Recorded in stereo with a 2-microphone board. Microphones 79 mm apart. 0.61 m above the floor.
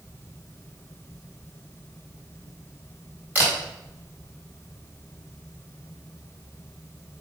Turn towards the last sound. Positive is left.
turn(degrees=-20)  # may be behind; listen again after turning